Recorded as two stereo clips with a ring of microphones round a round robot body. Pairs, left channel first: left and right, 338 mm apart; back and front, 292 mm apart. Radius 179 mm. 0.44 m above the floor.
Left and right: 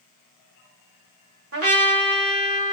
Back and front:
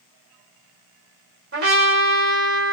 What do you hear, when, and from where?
1.5 s a trumpet: 50° right, 2 m